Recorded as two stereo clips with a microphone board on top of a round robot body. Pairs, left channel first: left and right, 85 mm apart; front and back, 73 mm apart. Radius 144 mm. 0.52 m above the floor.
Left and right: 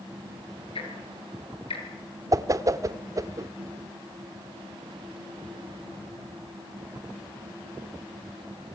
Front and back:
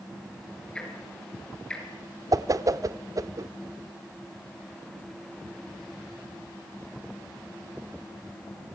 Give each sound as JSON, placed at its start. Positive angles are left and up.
{"t": 0.8, "sound": "ticking", "azimuth_deg": 80, "distance_m": 4.5}
{"t": 2.3, "sound": "a whoosh", "azimuth_deg": -140, "distance_m": 0.9}